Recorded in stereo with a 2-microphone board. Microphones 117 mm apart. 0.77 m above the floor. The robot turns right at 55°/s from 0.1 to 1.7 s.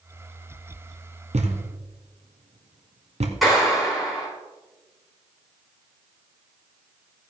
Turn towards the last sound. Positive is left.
turn(degrees=0)  # may be behind; listen again after turning